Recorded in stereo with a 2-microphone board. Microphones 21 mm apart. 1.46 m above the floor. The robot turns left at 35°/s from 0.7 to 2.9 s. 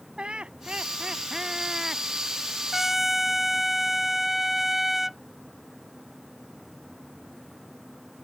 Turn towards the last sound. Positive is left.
turn(degrees=-10)  # may be behind; listen again after turning